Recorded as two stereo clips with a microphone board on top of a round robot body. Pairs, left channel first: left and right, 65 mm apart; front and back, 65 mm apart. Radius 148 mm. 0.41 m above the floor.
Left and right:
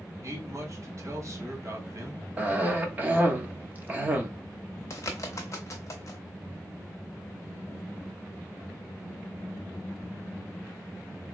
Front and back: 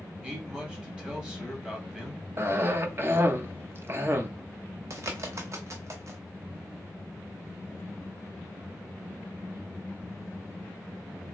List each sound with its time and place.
0.2 s a man speaking: 110° right, 1.7 m
2.4 s a cough: 145° right, 1.0 m
4.9 s a bird: 135° left, 0.6 m